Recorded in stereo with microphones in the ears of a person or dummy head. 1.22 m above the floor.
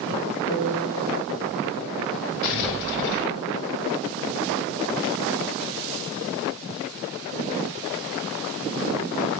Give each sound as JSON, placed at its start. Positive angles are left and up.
{"t": 0.5, "sound": "a piano", "side_deg": 35, "distance_m": 4.5}
{"t": 2.4, "sound": "an explosion", "side_deg": 55, "distance_m": 6.0}